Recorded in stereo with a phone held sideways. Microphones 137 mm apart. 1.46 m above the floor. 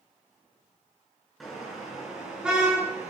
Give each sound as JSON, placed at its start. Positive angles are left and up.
{"t": 1.4, "sound": "a car horn", "side_deg": 0, "distance_m": 9.0}